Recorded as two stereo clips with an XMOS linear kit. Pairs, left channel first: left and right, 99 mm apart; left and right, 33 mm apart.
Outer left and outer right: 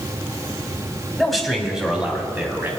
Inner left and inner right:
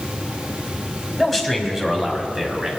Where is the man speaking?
5° left (ahead or behind), 1.8 m; by 2.7 s 20° right (ahead or behind), 2 m.